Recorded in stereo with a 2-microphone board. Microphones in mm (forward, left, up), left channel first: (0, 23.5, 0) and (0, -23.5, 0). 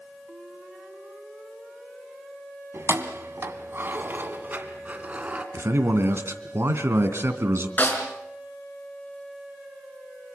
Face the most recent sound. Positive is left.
turn(degrees=40)  # may be behind; listen again after turning